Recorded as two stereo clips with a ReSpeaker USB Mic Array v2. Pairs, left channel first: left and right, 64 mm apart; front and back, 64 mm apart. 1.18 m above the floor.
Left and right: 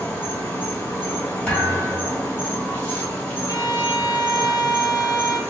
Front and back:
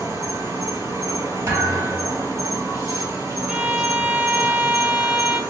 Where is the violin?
110° left, 0.6 m.